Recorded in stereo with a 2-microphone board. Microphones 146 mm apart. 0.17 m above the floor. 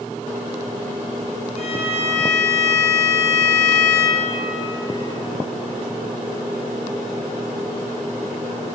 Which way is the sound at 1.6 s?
50° left (ahead or behind).